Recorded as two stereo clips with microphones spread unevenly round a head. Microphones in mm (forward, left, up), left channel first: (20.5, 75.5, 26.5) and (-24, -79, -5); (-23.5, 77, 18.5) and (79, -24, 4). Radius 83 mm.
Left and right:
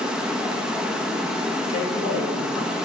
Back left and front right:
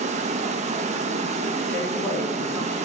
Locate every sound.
0.0 s running water: 10° right, 0.8 m
1.7 s a man speaking: 55° left, 3.5 m